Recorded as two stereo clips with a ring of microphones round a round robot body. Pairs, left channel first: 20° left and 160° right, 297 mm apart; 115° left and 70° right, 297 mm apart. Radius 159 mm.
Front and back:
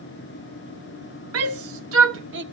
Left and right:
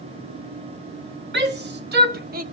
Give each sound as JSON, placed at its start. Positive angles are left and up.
{"t": 1.3, "sound": "a shout", "azimuth_deg": -120, "distance_m": 1.7}